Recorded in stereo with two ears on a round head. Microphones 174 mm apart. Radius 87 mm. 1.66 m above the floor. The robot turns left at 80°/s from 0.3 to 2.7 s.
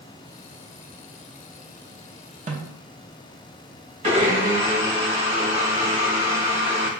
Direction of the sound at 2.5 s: 35° right (ahead or behind).